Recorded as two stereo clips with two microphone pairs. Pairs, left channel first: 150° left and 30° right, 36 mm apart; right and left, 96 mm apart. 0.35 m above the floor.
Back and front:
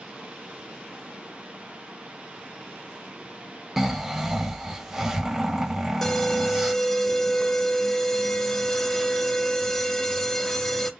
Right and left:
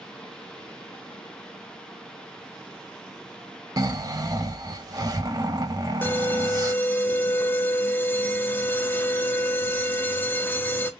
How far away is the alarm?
About 0.6 m.